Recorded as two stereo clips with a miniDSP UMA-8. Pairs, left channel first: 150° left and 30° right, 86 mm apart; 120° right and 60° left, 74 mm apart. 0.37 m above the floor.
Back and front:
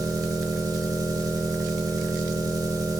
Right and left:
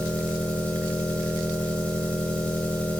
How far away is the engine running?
About 1.3 m.